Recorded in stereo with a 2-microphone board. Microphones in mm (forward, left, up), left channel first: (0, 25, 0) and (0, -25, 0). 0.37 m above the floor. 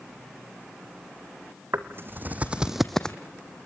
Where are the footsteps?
60° right (ahead or behind), 1.8 m; by 3.2 s 20° left (ahead or behind), 1.3 m.